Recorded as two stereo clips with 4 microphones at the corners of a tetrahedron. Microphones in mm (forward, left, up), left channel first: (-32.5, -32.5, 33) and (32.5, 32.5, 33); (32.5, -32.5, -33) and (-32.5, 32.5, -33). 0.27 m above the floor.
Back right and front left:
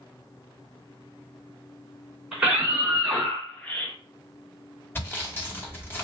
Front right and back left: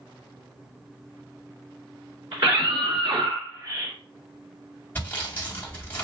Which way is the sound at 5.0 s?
95° right.